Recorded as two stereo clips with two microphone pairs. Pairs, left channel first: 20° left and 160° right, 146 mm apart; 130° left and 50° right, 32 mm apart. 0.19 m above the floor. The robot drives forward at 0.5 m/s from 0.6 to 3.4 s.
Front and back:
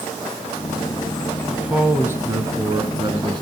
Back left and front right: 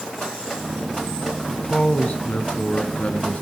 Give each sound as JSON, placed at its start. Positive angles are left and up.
{"t": 1.5, "sound": "a man speaking", "azimuth_deg": 120, "distance_m": 1.3}